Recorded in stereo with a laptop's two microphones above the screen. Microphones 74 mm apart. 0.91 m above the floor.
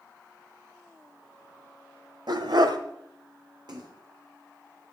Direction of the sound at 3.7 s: 65° right (ahead or behind).